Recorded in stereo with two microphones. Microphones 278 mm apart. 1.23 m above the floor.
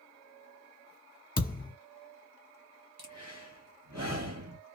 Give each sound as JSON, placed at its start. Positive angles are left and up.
{"t": 1.4, "sound": "a thud", "side_deg": 30, "distance_m": 0.9}
{"t": 3.0, "sound": "breathing", "side_deg": -65, "distance_m": 0.9}